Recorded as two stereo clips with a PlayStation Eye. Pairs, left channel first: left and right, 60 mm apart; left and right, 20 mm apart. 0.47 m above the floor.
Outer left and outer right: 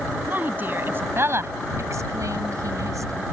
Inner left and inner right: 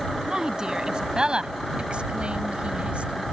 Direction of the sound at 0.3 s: 30° right (ahead or behind).